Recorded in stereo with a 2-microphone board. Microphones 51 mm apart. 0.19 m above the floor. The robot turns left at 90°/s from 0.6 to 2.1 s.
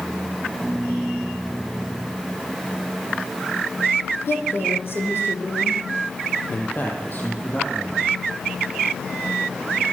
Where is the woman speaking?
50° left (ahead or behind), 8 m.